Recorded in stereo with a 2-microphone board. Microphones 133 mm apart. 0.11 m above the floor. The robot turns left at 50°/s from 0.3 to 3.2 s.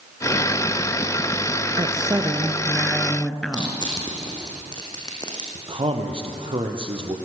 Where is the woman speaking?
115° right, 1.8 m; by 3.8 s 170° left, 1.8 m.